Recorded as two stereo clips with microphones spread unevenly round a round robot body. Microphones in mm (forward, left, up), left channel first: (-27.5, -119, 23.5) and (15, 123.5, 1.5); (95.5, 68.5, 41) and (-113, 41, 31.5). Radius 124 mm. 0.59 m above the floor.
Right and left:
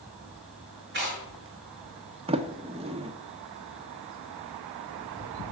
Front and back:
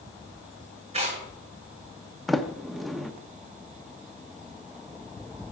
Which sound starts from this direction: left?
A sliding door, at 2.3 s.